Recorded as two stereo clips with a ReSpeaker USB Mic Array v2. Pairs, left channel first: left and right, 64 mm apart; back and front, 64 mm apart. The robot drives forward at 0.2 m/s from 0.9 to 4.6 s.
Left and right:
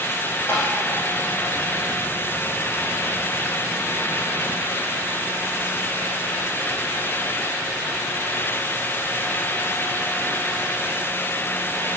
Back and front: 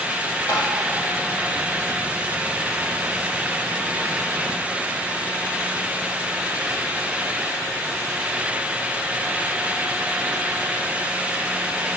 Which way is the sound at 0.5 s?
145° left.